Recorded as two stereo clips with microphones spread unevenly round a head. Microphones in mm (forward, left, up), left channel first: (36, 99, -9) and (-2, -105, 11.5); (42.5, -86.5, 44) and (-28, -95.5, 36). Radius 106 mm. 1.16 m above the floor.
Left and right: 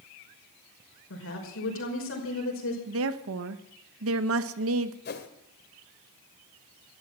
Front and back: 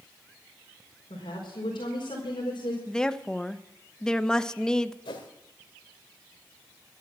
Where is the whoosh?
35° left, 1.9 m.